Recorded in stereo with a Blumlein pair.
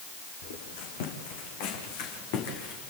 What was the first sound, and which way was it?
Footsteps, 55° left.